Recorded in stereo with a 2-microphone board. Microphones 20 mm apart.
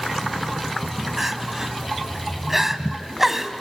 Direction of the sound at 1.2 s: 15° right (ahead or behind).